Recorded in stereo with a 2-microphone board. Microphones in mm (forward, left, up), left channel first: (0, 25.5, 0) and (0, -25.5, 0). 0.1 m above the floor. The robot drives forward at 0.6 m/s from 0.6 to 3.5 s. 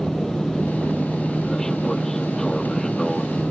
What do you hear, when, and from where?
0.0 s an aircraft: 10° left (ahead or behind); by 3.5 s 5° left (ahead or behind)